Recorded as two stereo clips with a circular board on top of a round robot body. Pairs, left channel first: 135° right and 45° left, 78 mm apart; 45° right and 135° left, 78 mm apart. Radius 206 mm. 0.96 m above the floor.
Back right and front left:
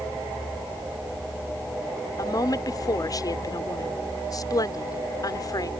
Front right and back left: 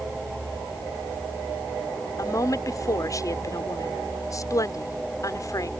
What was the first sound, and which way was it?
A woman speaking, 95° right.